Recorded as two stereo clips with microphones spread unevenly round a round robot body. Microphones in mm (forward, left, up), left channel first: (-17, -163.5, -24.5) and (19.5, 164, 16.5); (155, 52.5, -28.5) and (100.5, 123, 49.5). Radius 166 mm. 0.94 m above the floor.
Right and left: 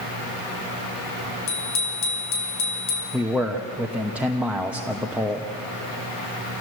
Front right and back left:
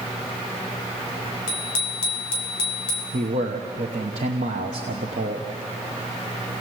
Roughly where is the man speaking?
Behind.